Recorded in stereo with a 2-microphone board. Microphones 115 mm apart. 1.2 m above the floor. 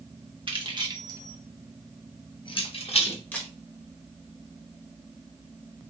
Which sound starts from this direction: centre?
A camera shutter, at 3.3 s.